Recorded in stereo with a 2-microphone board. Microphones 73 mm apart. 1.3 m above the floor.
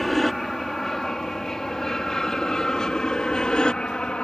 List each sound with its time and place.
0.0 s an aircraft: 5° left (ahead or behind); by 4.2 s 15° left (ahead or behind)